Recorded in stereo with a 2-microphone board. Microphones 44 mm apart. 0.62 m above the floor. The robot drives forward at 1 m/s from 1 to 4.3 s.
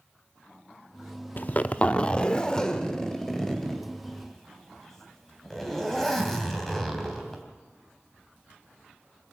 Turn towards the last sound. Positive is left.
turn(degrees=10)  # may be behind; listen again after turning